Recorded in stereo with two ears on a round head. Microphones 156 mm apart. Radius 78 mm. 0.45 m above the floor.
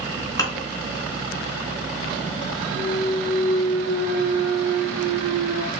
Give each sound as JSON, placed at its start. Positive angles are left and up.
{"t": 0.4, "sound": "dishes clattering", "side_deg": 20, "distance_m": 3.5}
{"t": 2.8, "sound": "a clunk", "side_deg": 70, "distance_m": 2.5}